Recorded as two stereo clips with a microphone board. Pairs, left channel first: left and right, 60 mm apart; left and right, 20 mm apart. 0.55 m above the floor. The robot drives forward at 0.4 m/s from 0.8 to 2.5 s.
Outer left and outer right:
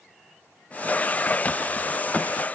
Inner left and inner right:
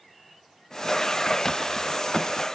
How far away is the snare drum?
No snare drum in this recording.